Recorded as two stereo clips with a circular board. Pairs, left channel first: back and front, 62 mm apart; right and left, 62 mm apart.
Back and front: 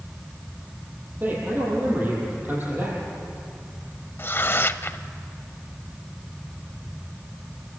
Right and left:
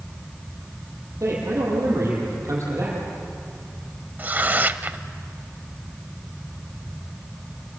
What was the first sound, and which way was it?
A man speaking, 60° left.